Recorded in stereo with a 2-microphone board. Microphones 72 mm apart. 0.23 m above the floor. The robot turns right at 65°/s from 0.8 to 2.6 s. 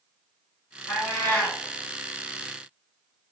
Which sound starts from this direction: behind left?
A cat meowing, at 0.9 s.